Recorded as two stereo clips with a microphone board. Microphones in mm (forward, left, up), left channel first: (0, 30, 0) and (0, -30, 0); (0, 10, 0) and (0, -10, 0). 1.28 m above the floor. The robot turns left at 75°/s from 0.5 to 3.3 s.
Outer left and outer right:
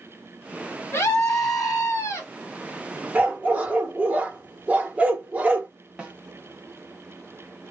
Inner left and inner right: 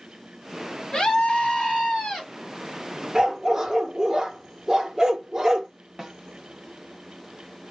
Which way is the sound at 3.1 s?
30° right (ahead or behind).